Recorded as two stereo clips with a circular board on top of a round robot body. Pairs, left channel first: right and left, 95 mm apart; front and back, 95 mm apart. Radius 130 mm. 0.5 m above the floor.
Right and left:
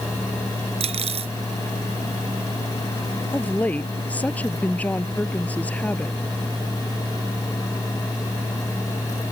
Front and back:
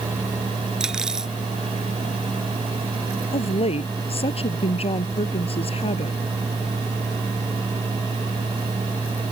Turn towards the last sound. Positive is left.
turn(degrees=-15)